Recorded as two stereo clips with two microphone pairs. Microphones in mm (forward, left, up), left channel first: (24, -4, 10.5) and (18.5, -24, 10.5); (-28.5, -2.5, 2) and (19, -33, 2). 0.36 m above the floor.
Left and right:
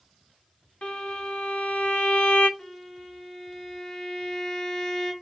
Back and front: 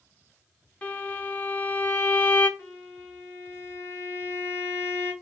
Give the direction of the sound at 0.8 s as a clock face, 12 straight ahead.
9 o'clock.